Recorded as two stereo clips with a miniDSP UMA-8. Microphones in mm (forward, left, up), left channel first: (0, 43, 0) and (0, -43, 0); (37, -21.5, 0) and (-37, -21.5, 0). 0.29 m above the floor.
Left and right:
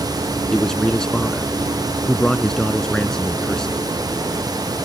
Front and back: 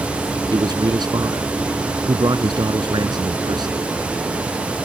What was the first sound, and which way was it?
A man speaking, 170° left.